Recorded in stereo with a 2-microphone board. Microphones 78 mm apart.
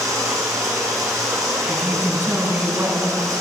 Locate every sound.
0.0 s running water: 40° right (ahead or behind), 5 m
1.7 s a woman speaking: 25° right (ahead or behind), 4 m